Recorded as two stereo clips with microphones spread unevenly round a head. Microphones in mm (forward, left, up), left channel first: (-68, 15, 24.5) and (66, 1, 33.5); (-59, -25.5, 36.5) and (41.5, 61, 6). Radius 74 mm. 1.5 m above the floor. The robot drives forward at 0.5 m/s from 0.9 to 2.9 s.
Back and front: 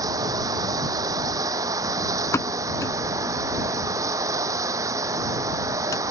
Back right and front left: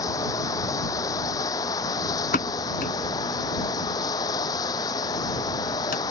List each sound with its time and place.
0.0 s running water: 75° right
2.3 s a pop: 110° right; by 6.0 s 115° right